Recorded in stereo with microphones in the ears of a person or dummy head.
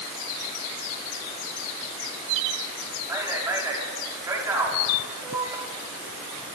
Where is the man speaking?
15° right (ahead or behind), 5.5 m.